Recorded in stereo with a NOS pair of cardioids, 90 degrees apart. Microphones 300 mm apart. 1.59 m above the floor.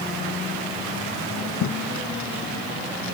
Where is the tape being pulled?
70° left.